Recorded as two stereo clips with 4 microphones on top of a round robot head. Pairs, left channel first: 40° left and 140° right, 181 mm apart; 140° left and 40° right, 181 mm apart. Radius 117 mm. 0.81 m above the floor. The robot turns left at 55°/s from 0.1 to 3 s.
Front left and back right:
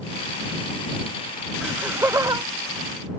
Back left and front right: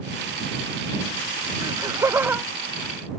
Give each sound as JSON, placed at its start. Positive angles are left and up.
{"t": 1.6, "sound": "laughter", "azimuth_deg": -60}